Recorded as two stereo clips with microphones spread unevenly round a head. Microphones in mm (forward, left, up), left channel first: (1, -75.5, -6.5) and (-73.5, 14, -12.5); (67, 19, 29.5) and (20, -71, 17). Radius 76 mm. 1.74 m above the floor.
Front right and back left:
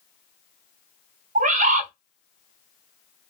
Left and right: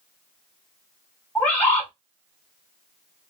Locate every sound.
1.4 s a bird: 140° left, 0.7 m